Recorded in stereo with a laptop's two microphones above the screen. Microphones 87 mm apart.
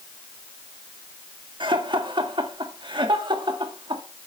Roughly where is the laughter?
Right.